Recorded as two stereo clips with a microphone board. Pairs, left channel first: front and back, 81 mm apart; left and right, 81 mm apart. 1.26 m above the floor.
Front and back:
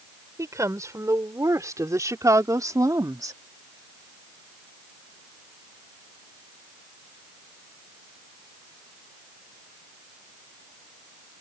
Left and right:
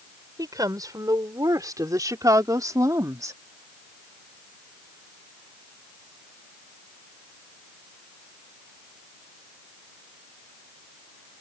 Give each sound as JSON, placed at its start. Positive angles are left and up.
{"t": 0.4, "sound": "a woman speaking", "azimuth_deg": -130}